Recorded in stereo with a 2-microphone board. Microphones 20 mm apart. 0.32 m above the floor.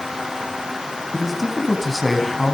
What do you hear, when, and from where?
1.1 s a man speaking: centre (ahead or behind), 3 m